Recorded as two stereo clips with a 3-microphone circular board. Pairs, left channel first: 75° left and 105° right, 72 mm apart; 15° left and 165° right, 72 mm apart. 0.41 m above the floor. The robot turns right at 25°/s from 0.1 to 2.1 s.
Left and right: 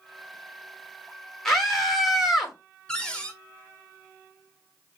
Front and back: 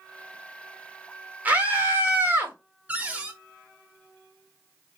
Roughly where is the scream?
Behind left.